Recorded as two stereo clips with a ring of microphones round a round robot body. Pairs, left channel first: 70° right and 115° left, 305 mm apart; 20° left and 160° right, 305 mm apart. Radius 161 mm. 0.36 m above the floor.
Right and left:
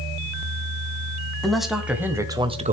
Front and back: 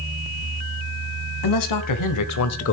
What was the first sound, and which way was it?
A man speaking, 20° left.